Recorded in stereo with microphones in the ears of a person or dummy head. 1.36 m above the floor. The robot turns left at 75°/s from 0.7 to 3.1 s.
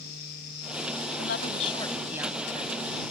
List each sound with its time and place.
1.2 s a woman speaking: 65° left; by 3.0 s 75° right